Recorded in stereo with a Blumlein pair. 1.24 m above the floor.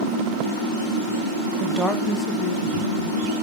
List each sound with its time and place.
1.6 s a woman speaking: 15° right, 0.8 m; by 3.3 s 60° left, 2 m